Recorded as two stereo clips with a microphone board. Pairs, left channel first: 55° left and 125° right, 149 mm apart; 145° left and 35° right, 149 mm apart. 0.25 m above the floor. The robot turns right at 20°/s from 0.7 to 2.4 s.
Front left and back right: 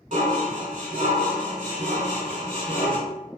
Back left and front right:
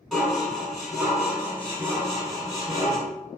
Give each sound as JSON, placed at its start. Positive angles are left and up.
{"t": 0.1, "sound": "dishes clattering", "azimuth_deg": -125, "distance_m": 1.1}